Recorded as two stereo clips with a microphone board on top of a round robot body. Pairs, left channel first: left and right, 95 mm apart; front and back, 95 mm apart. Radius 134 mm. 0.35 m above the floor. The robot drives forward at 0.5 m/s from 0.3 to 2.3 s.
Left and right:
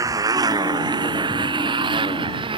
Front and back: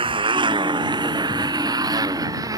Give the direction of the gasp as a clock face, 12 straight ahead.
No gasp in this recording.